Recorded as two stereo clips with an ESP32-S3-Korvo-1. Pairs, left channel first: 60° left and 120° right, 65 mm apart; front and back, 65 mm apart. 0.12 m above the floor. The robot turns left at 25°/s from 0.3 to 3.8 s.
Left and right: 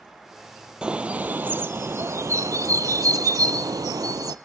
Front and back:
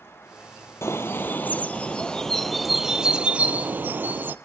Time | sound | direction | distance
0.8 | a bird | 45° right | 0.5 m